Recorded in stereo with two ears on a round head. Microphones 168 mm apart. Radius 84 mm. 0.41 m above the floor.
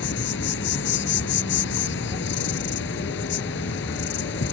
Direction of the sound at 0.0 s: 70° left (ahead or behind).